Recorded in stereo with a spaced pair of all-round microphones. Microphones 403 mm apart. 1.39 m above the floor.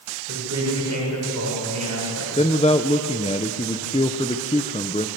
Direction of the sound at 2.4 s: 15° left (ahead or behind).